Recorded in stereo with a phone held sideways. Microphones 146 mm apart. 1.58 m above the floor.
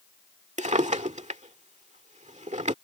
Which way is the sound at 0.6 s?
55° right (ahead or behind).